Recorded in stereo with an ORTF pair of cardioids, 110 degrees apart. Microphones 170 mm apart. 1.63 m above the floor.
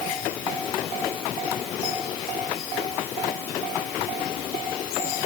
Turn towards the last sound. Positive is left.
No sound to turn to.